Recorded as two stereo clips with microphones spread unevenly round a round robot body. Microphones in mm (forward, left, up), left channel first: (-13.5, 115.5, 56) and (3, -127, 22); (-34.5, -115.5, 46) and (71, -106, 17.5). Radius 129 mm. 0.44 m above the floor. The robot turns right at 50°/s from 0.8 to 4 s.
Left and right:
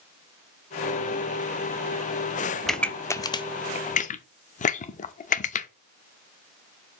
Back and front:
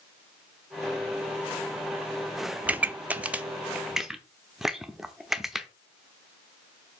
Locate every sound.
2.6 s a pop: 10° right, 0.7 m; by 5.7 s 55° left, 0.7 m